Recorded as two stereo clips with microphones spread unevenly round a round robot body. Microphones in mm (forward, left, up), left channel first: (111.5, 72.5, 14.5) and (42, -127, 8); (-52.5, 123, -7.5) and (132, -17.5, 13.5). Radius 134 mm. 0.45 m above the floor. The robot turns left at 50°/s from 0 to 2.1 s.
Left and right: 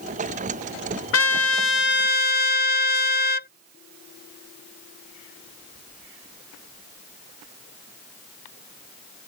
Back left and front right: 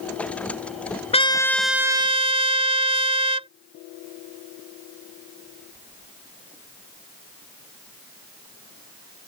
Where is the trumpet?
80° left; by 3.5 s 30° left.